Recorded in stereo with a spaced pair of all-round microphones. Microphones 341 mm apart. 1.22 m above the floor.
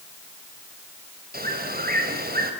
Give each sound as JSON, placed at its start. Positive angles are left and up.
{"t": 1.3, "sound": "a bird", "side_deg": -25, "distance_m": 4.0}